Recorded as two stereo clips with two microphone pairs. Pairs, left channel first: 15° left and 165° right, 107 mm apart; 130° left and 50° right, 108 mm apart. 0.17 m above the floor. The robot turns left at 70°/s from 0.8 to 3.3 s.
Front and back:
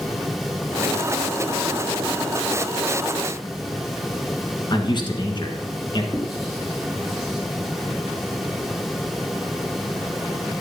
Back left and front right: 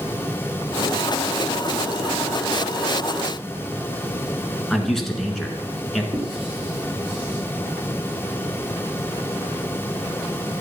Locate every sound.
4.7 s a man speaking: 45° left, 1.9 m
6.1 s writing: 75° right, 4.5 m